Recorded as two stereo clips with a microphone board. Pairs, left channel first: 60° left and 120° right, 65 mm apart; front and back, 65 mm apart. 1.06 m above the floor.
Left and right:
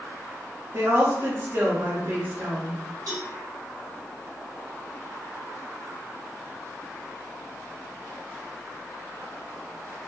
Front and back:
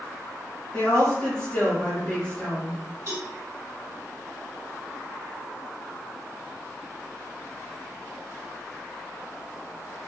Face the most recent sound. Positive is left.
turn(degrees=-140)